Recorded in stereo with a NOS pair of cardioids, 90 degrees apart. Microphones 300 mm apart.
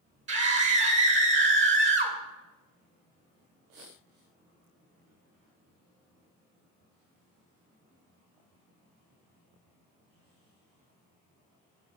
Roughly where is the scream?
Ahead right.